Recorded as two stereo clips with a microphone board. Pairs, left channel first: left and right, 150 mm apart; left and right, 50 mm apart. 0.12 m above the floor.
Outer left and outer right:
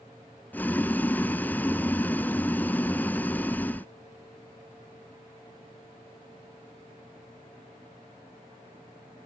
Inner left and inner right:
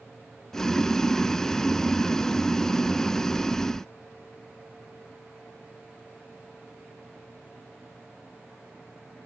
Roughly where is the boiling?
Centre.